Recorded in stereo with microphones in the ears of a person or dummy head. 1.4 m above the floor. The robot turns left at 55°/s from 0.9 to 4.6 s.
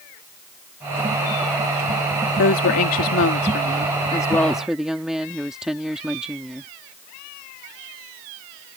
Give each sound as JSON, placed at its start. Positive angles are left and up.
{"t": 2.4, "sound": "a woman speaking", "azimuth_deg": 120}